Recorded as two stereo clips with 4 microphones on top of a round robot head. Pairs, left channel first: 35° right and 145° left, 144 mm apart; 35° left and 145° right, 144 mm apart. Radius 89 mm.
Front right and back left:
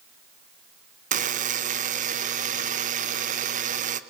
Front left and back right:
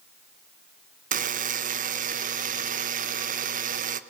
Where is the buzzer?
Straight behind, 1.3 m.